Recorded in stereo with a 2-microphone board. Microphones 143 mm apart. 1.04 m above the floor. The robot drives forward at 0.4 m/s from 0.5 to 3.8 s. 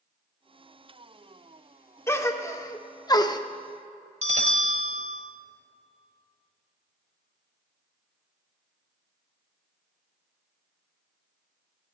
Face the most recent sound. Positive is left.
turn(degrees=-50)  # may be behind; listen again after turning